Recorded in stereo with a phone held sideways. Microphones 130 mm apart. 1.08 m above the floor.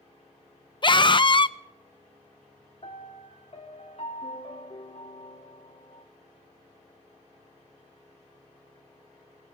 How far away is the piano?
About 2 m.